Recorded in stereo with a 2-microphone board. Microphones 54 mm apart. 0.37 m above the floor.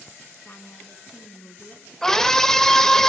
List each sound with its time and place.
0.5 s a woman speaking: 45° left (ahead or behind), 4 m
2.0 s a scream: 10° left (ahead or behind), 1.6 m